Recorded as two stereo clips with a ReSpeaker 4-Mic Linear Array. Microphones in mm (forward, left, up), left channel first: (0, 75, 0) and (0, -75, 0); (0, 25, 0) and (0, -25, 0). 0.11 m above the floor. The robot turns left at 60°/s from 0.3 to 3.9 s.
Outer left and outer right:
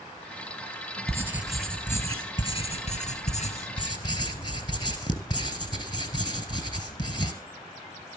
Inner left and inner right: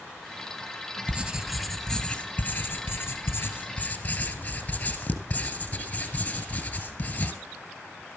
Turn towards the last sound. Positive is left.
turn(degrees=40)